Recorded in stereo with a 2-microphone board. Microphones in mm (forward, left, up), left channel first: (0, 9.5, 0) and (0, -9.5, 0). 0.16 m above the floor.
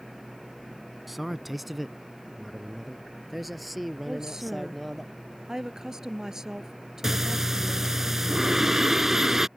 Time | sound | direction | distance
1.1 | a man speaking | 5° right (ahead or behind) | ?
4.1 | a woman speaking | 30° right (ahead or behind) | ?
7.0 | breathing | 25° right (ahead or behind) | ?